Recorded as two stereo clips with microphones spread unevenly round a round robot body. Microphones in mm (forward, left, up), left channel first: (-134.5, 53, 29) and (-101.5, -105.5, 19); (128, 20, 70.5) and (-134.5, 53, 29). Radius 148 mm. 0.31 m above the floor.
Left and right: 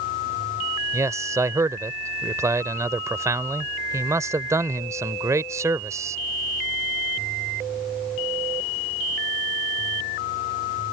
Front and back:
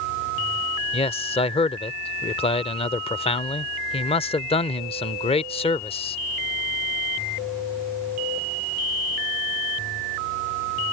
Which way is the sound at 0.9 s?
65° right.